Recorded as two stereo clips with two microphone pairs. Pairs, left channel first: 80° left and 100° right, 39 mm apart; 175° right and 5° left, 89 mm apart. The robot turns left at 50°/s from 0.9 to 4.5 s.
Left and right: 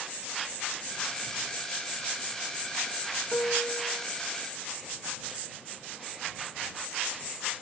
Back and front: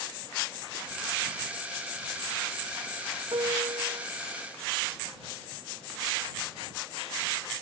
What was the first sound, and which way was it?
A piano, 35° left.